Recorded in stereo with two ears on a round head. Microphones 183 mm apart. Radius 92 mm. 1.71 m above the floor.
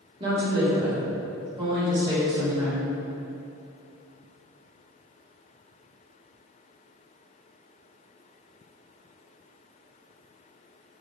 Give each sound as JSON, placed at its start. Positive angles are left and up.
{"t": 0.2, "sound": "a woman speaking", "side_deg": -25, "distance_m": 1.3}